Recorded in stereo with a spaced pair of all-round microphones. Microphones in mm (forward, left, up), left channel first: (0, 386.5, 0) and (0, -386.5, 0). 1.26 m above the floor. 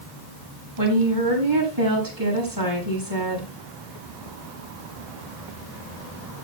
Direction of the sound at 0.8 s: 25° right (ahead or behind).